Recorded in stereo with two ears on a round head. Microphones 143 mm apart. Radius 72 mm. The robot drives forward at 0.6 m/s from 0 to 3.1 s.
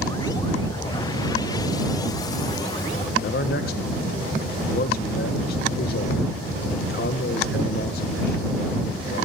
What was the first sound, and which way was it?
A man speaking, 65° left (ahead or behind).